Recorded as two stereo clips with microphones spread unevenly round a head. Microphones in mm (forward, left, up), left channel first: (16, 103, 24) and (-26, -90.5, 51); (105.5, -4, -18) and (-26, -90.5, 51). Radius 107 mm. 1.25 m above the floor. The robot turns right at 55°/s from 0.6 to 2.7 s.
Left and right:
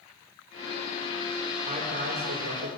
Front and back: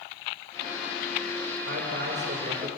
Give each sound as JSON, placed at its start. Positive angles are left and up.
{"t": 1.6, "sound": "a man speaking", "azimuth_deg": -165, "distance_m": 5.0}